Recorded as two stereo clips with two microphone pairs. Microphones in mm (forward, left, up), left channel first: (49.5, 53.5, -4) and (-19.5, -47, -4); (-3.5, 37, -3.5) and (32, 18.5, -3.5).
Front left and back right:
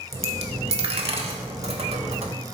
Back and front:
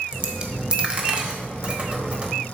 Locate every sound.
0.1 s a dropped coin: 90° right, 1.2 m